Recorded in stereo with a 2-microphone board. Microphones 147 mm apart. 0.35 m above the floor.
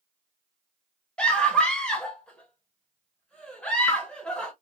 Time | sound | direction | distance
1.2 | a scream | 5° left (ahead or behind) | 1.2 m